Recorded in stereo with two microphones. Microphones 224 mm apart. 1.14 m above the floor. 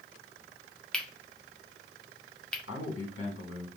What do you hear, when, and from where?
0.9 s cutlery clinking: 5° left (ahead or behind), 0.6 m
2.7 s a man speaking: 75° left (ahead or behind), 1.6 m